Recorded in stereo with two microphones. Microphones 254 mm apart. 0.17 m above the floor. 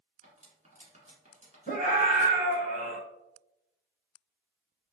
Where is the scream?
35° right (ahead or behind), 1.4 m.